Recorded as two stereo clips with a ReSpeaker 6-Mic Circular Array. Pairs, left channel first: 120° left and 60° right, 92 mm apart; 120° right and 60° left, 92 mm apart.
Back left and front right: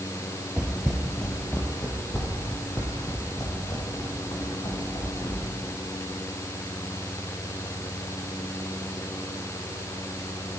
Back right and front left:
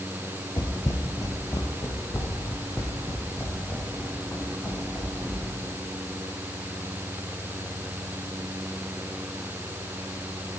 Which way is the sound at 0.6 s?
135° right.